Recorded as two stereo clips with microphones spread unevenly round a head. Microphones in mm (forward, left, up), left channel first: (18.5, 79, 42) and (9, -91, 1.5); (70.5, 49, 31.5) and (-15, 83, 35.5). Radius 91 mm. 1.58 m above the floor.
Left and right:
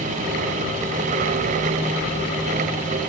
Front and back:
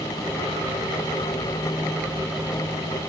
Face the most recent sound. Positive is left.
No sound to turn to.